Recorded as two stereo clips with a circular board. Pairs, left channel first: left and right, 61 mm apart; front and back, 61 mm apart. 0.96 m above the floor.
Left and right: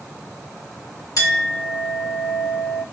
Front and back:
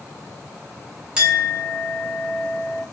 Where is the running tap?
I don't hear a running tap.